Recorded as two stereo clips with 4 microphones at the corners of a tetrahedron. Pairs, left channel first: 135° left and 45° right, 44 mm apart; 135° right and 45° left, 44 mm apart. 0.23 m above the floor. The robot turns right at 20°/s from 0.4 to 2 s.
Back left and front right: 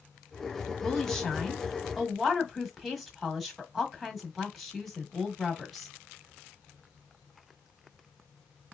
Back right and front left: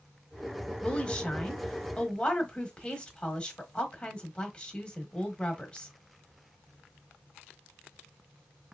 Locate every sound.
0.8 s a woman speaking: 160° right, 1.2 m; by 5.9 s 135° right, 1.2 m